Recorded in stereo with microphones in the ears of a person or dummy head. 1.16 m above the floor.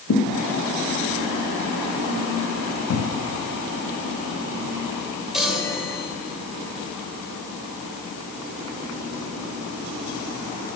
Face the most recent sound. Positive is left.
turn(degrees=5)  # may be behind; listen again after turning